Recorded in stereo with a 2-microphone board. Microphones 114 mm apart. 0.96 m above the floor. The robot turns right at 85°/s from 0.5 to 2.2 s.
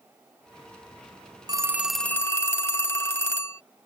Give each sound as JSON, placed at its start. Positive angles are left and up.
{"t": 1.5, "sound": "a phone ringing", "azimuth_deg": -35}